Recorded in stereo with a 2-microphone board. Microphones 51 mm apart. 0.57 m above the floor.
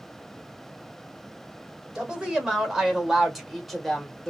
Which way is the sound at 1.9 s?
20° right (ahead or behind).